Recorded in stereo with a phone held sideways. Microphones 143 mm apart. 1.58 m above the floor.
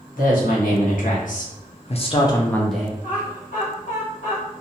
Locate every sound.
0.2 s a woman speaking: 75° left (ahead or behind), 1.3 m; by 2.9 s 10° right (ahead or behind), 0.5 m
3.0 s laughter: 70° left (ahead or behind), 1.4 m